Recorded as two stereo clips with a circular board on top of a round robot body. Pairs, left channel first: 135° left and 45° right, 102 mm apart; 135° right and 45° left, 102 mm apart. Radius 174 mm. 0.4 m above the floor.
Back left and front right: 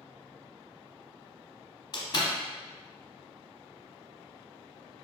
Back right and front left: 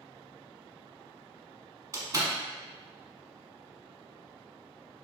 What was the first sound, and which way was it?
A door slam, 95° left.